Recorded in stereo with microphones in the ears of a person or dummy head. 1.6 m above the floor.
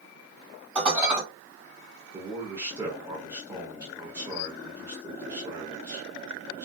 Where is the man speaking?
10° right (ahead or behind), 0.7 m.